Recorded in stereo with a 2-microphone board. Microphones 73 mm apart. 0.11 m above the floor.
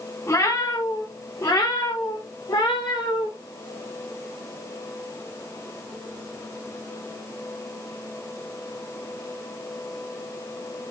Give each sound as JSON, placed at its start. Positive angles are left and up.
{"t": 0.3, "sound": "a cat meowing", "side_deg": 40, "distance_m": 5.5}